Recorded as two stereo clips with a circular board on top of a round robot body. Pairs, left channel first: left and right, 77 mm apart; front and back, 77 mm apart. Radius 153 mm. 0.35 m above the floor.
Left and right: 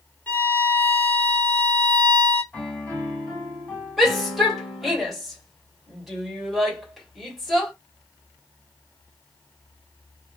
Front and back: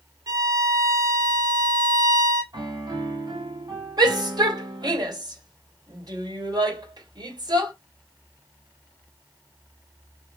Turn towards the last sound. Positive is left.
turn(degrees=180)